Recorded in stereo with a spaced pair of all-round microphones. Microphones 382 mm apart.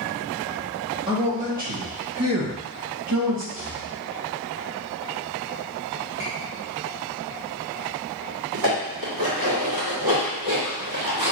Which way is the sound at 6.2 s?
10° right (ahead or behind).